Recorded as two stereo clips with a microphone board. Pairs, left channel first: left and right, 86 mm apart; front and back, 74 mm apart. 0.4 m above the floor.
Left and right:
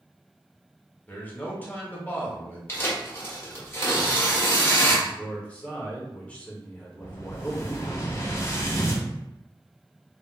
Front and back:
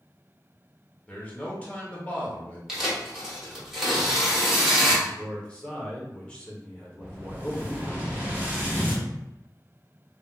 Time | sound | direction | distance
1.1 | a man speaking | 45° left | 0.8 m
2.7 | tearing paper | 100° left | 1.1 m
5.0 | a man speaking | 45° left | 0.8 m
7.0 | an explosion | 125° left | 0.7 m